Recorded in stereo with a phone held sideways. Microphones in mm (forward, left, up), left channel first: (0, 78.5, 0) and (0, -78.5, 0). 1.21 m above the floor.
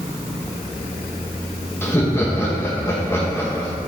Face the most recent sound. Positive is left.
turn(degrees=15)  # may be behind; listen again after turning